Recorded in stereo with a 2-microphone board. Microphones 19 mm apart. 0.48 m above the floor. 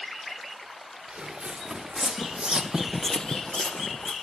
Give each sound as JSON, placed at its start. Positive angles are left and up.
{"t": 1.1, "sound": "footsteps", "side_deg": -75, "distance_m": 2.5}